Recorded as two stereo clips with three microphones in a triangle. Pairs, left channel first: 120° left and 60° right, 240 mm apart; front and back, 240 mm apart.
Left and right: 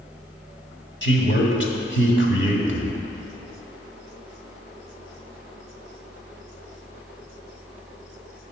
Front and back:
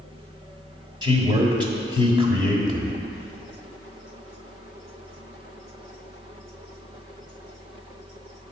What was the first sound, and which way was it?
A man speaking, 115° left.